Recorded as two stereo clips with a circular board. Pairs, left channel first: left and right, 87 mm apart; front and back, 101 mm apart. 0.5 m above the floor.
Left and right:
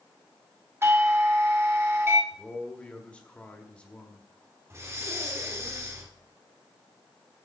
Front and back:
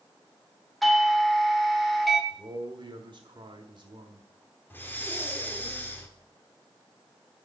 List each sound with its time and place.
0.8 s a doorbell: 85° right, 1.3 m
2.3 s a man speaking: 160° left, 1.5 m
4.7 s breathing: 55° right, 1.6 m